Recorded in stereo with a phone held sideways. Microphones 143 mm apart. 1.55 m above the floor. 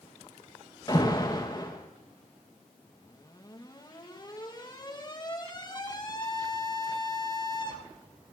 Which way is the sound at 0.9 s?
30° left (ahead or behind).